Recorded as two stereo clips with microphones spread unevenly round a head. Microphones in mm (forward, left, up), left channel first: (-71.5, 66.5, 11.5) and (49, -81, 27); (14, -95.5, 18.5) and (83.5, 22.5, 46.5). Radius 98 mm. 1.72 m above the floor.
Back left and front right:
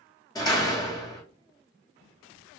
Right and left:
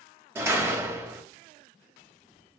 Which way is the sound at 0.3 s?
65° left.